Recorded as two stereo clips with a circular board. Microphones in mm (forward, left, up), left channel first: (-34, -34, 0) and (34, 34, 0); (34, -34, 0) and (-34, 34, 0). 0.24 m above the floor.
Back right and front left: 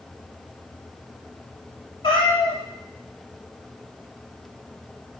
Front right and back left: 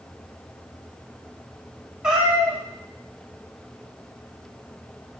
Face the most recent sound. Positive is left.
turn(degrees=-140)